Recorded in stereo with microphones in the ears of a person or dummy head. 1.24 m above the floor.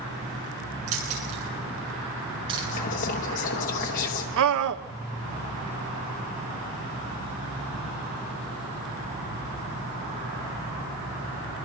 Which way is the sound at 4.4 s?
70° right (ahead or behind).